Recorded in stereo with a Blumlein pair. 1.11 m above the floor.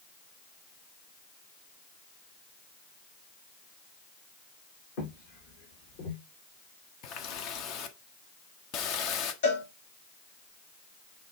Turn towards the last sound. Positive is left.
turn(degrees=55)